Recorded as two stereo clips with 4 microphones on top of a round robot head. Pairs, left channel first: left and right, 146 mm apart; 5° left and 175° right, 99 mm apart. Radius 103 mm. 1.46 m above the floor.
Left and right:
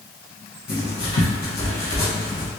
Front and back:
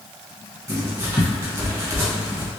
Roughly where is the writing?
Behind left.